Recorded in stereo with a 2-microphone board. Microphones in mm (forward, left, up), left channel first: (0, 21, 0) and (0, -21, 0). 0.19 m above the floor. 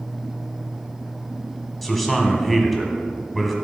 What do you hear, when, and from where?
1.8 s a man speaking: centre (ahead or behind), 1.2 m